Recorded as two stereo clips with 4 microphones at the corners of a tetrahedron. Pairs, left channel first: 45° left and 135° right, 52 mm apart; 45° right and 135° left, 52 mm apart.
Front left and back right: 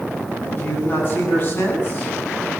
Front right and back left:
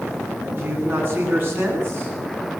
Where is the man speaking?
95° left, 9.5 m.